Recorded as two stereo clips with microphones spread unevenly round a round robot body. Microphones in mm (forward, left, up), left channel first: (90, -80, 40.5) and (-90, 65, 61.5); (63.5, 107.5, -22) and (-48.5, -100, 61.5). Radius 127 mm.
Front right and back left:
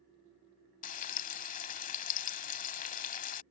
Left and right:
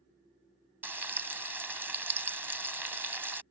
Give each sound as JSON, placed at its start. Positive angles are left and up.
{"t": 0.8, "sound": "frying", "azimuth_deg": -80}